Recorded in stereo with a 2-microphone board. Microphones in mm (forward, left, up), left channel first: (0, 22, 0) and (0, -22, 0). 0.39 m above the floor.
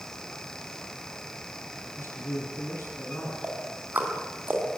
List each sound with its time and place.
2.0 s a man speaking: 70° left (ahead or behind), 8.5 m
3.4 s ticking: 40° right (ahead or behind), 4 m